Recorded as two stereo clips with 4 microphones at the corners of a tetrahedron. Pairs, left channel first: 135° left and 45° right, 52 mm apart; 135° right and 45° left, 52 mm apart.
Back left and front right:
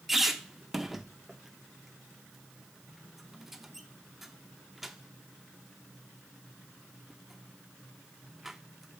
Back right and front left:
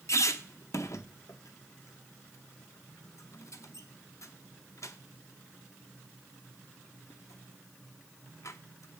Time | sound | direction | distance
0.1 | a squeak | 130° right | 0.6 m